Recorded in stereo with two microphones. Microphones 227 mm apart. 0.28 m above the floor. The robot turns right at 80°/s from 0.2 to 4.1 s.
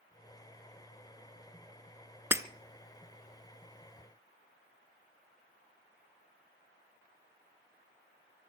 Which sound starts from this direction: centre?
Breaking glass, at 2.3 s.